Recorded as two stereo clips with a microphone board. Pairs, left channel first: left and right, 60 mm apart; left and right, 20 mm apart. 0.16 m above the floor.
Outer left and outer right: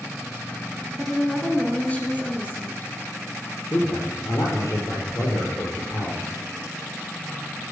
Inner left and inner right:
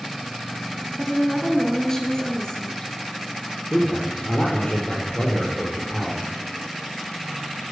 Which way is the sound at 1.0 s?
5° left (ahead or behind).